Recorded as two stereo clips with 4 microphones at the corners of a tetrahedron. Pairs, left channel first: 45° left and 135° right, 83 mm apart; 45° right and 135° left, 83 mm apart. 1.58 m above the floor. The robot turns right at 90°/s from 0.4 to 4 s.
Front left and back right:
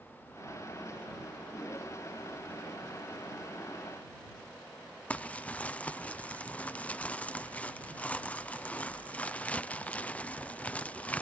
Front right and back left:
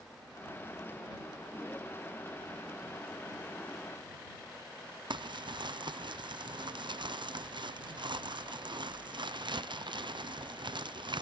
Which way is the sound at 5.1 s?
120° left.